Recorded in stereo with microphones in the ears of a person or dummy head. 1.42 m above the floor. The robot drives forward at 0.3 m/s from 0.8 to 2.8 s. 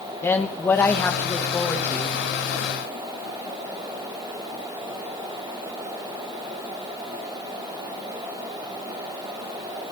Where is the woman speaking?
15° left (ahead or behind), 1.0 m; by 2.1 s 10° left (ahead or behind), 1.4 m.